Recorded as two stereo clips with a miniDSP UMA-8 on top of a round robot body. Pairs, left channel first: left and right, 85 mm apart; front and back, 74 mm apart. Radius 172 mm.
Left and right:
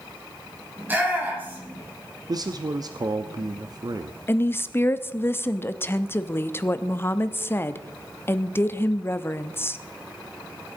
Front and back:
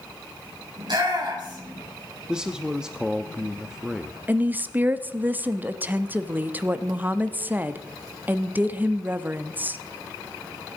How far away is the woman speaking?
About 1.1 m.